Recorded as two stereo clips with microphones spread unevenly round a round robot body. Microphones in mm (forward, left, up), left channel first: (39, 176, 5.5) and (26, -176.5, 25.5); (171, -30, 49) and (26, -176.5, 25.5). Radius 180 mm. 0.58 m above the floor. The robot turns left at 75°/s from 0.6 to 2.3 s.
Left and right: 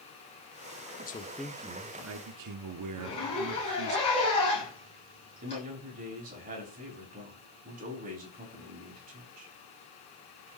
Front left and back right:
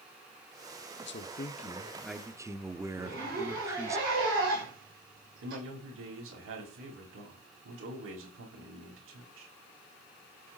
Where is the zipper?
160° left, 8.5 m.